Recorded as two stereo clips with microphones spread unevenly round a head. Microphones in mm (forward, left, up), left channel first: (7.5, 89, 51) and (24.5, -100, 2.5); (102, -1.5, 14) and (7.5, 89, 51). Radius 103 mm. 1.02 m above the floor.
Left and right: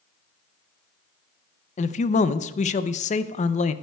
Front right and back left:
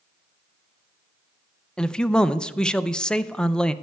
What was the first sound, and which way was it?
A man speaking, 35° left.